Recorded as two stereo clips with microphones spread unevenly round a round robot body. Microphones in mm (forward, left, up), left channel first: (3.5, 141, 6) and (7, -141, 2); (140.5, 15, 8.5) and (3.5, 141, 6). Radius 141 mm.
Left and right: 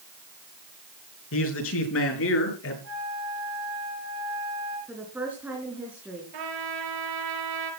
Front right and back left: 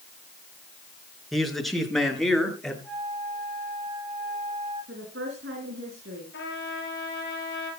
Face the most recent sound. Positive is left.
turn(degrees=-95)